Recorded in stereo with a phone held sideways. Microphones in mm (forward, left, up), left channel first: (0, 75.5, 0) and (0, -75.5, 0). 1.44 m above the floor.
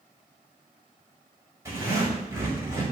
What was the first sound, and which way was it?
A zipper, 20° right (ahead or behind).